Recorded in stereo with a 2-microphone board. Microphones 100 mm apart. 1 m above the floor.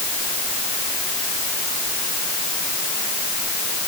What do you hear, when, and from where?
Only background noise.